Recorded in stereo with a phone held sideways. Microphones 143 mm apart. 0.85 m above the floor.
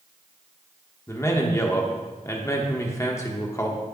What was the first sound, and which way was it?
A man speaking, 20° left (ahead or behind).